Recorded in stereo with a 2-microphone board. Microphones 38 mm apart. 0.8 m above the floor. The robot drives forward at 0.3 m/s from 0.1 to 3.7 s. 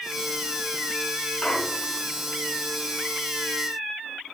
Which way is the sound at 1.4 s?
25° left (ahead or behind).